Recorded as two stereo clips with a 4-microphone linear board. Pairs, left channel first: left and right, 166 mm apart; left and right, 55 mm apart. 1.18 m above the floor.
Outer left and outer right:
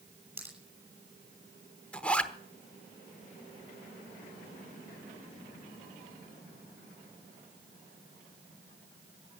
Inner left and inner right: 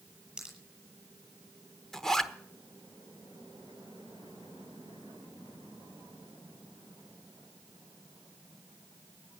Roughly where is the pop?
Centre.